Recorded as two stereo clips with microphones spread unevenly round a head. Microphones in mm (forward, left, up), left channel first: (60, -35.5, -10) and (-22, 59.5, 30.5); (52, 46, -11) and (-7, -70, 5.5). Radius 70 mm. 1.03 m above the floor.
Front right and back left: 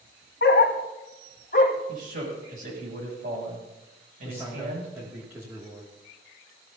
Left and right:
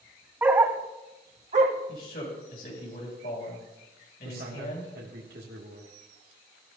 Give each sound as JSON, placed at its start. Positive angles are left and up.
{"t": 0.4, "sound": "a dog barking", "azimuth_deg": -45, "distance_m": 1.5}
{"t": 1.9, "sound": "a man speaking", "azimuth_deg": 105, "distance_m": 7.5}
{"t": 4.2, "sound": "a man speaking", "azimuth_deg": -150, "distance_m": 2.5}